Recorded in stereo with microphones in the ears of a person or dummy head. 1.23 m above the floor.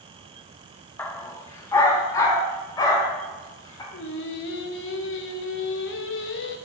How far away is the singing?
About 1.0 m.